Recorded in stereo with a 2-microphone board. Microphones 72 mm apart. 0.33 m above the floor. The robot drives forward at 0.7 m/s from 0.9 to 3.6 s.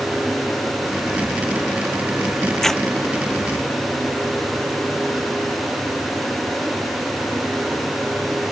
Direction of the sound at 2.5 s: 5° left (ahead or behind).